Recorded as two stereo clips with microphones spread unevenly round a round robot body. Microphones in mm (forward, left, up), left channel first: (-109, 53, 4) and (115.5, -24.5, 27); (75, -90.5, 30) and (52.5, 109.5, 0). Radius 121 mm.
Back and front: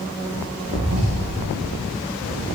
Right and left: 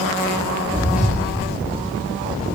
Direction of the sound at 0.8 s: 10° left.